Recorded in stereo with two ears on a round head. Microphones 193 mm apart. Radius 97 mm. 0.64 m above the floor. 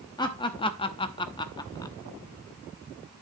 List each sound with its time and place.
0.2 s laughter: 20° left (ahead or behind), 0.8 m; by 1.9 s 15° left (ahead or behind), 1.0 m